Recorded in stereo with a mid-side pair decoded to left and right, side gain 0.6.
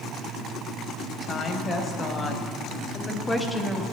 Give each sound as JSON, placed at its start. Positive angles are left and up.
{"t": 1.2, "sound": "a woman speaking", "azimuth_deg": 30, "distance_m": 2.5}